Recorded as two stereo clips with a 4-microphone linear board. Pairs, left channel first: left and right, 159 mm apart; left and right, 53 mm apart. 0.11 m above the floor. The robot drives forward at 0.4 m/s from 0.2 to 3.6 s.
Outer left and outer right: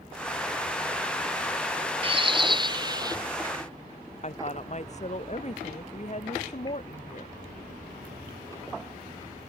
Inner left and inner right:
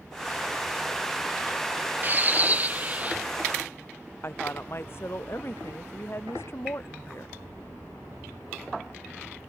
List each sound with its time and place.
2.0 s a bird: 35° right (ahead or behind); by 3.2 s 25° right (ahead or behind)
4.2 s a woman speaking: 45° left (ahead or behind)